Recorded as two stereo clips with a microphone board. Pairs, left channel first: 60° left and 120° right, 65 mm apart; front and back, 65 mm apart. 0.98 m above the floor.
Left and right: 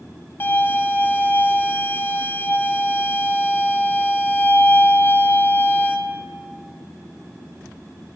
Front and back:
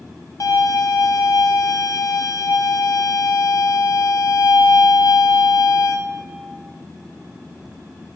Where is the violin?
10° left, 1.0 m.